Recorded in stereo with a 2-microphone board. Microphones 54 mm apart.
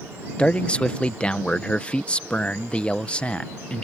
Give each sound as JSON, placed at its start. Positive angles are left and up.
{"t": 0.4, "sound": "a man speaking", "side_deg": 20}